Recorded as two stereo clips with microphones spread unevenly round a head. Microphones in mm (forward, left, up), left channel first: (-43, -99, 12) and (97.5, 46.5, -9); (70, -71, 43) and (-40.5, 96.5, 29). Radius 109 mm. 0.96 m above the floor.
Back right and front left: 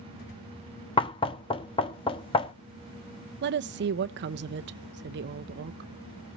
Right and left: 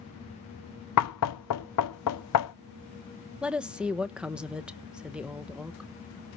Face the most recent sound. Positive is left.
turn(degrees=40)